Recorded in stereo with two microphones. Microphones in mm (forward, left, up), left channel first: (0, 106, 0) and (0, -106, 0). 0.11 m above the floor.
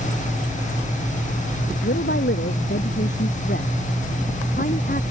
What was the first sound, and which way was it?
A woman speaking, 60° left (ahead or behind).